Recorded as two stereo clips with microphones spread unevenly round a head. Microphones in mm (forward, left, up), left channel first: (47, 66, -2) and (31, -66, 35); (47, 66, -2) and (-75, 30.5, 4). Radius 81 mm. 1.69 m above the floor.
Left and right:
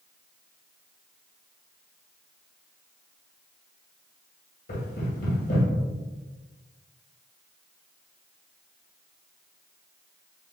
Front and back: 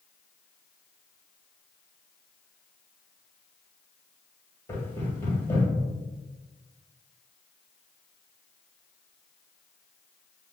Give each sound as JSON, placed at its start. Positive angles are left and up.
{"t": 4.7, "sound": "knocking", "azimuth_deg": 90, "distance_m": 1.8}